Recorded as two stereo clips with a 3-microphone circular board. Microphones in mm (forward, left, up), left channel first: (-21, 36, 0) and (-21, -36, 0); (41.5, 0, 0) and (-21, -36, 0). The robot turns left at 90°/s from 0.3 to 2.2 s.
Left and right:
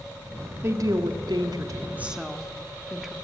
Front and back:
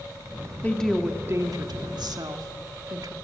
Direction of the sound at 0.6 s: 35° right.